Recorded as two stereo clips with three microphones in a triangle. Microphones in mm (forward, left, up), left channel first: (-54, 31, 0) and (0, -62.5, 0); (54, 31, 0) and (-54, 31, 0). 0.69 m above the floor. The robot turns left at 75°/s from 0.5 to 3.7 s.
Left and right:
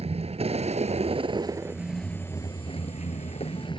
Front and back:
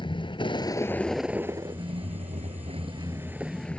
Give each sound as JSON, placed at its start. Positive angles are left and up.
{"t": 0.0, "sound": "a vehicle", "azimuth_deg": -40}